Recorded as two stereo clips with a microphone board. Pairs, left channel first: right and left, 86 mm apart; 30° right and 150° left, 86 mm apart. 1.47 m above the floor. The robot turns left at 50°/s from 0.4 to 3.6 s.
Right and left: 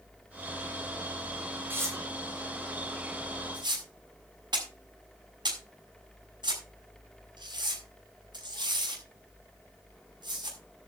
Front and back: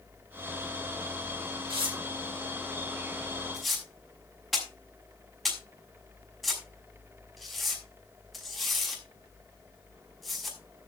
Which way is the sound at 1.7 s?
155° left.